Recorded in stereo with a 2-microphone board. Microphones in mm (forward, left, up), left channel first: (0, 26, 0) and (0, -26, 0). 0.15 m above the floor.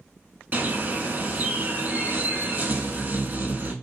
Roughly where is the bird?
Right.